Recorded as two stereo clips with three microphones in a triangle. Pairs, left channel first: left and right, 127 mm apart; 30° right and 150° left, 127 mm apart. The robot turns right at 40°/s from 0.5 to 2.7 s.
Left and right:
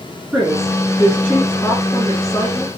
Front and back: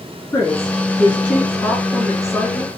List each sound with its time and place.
0.3 s a woman speaking: straight ahead, 1.2 m; by 2.7 s 85° left, 1.2 m